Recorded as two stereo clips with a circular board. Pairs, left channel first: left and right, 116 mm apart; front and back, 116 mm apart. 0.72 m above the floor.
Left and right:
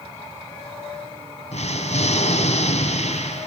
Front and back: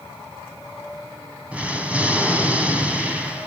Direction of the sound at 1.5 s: 100° left.